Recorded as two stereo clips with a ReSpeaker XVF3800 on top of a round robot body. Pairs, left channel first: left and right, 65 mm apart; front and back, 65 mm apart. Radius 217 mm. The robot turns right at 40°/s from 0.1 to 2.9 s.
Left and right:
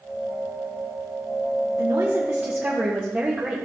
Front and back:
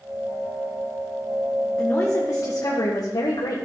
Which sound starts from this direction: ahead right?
A woman speaking, at 1.8 s.